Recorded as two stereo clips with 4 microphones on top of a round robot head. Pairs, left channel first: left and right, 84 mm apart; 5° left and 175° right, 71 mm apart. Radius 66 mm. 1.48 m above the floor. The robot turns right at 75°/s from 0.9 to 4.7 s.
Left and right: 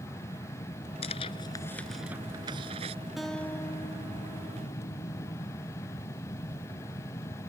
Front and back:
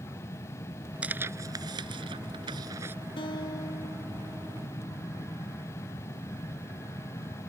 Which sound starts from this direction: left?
Tearing paper, at 1.0 s.